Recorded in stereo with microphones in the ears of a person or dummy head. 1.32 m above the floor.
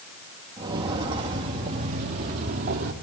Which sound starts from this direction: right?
Footsteps, at 0.6 s.